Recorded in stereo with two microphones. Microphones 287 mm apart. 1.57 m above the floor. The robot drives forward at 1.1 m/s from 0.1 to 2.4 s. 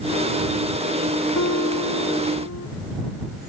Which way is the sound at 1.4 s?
65° left (ahead or behind).